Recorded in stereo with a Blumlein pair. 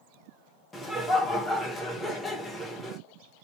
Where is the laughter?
5° left, 1.3 m.